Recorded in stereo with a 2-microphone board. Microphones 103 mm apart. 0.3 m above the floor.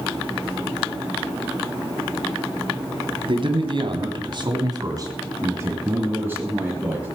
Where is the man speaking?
55° right (ahead or behind), 2.5 m; by 7.1 s 10° right (ahead or behind), 4.5 m.